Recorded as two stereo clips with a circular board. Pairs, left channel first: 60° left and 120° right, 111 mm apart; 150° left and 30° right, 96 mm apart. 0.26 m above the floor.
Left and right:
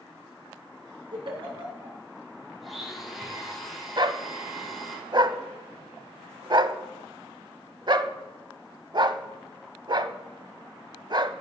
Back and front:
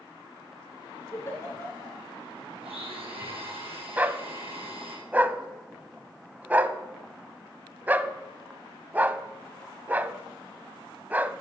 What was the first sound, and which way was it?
A giggle, 150° right.